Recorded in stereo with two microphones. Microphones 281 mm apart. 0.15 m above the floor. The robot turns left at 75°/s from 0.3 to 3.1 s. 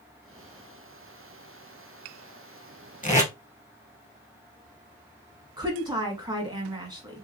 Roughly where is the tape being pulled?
Left.